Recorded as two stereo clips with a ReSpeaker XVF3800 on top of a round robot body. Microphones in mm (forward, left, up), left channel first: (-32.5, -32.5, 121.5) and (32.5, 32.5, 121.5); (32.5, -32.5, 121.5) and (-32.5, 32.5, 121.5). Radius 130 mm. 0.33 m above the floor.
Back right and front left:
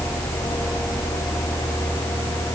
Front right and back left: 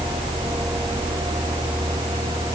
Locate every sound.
Only background noise.